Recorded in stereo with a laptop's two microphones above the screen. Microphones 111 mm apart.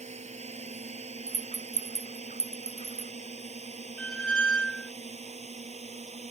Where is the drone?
90° right; by 6.3 s 80° right.